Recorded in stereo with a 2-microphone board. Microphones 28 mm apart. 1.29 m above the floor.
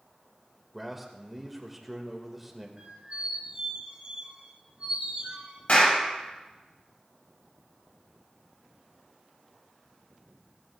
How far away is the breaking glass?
No breaking glass in this recording.